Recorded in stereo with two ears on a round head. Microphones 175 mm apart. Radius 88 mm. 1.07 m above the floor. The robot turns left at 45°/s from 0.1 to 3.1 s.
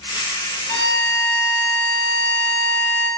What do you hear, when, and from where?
0.7 s a violin: 20° left (ahead or behind), 0.9 m; by 3.1 s centre (ahead or behind), 0.9 m